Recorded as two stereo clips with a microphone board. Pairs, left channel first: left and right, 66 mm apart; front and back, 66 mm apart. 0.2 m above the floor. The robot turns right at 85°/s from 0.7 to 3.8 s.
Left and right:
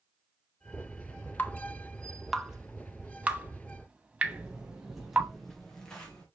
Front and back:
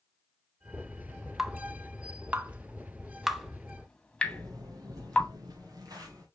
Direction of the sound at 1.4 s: 100° left.